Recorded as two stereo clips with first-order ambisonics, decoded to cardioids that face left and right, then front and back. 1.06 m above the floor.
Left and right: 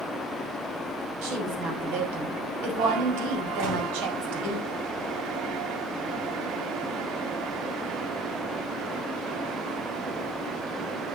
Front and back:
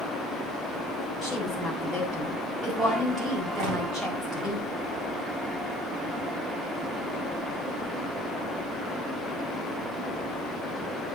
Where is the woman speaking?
95° right, 6.5 m.